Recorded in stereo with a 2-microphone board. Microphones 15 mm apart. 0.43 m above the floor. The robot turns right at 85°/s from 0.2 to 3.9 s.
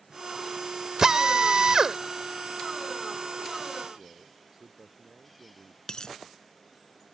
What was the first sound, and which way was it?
A drill, 125° right.